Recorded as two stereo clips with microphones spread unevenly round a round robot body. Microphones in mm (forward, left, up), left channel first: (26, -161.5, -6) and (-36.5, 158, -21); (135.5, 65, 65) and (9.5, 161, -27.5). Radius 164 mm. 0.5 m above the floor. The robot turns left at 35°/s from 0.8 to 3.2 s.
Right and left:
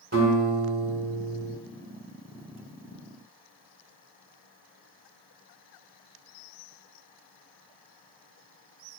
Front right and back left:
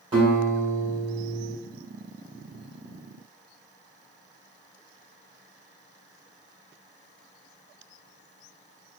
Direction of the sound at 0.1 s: 155° left.